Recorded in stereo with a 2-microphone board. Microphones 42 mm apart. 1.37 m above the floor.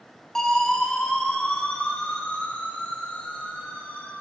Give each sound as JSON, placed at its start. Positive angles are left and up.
{"t": 0.3, "sound": "a siren", "side_deg": 15, "distance_m": 5.5}